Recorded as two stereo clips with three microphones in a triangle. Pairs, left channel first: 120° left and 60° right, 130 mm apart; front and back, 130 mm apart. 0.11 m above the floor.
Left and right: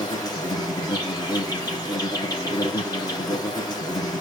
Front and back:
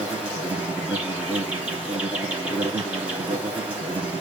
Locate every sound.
0.0 s an insect: 110° left, 2.5 m